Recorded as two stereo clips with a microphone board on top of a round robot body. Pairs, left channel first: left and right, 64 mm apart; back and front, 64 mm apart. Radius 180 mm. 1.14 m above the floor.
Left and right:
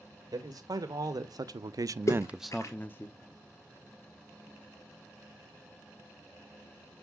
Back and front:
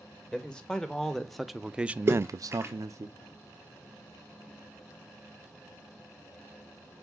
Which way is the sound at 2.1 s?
50° left.